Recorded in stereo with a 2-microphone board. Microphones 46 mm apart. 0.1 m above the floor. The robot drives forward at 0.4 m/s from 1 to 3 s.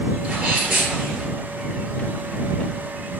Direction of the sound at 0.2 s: 20° right (ahead or behind).